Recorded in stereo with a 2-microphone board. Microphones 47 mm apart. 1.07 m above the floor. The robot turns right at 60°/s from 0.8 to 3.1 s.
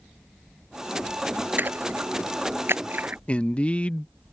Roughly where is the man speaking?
Left.